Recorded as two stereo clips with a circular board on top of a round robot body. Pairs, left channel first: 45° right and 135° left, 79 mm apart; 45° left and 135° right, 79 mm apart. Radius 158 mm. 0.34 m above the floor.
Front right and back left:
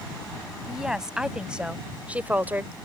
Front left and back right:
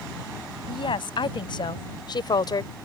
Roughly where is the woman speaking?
Ahead left.